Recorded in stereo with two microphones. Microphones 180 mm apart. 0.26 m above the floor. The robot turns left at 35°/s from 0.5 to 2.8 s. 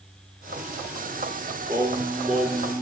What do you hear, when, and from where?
1.7 s singing: 155° right, 3 m; by 2.8 s 165° left, 3 m